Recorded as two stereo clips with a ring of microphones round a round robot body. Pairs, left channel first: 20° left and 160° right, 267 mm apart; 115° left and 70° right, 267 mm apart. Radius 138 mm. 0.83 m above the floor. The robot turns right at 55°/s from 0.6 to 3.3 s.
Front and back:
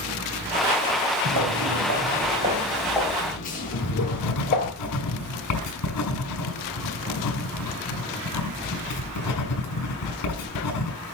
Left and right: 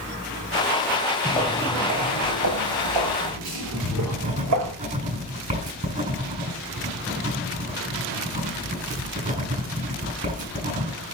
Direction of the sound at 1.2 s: Straight behind.